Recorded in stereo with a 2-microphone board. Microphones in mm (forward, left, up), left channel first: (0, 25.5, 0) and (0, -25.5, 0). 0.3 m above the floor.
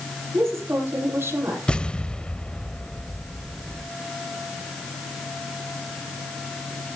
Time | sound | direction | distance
0.3 | a woman speaking | 55° right (ahead or behind) | 7 m
1.7 | an explosion | 20° left (ahead or behind) | 0.5 m